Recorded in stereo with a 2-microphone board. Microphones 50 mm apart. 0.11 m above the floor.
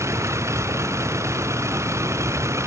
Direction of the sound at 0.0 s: 80° right.